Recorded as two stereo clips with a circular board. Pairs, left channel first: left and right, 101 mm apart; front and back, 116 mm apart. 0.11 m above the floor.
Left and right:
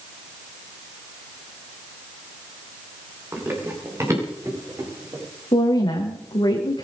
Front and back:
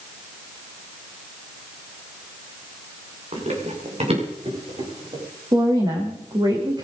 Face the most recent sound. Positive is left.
turn(degrees=130)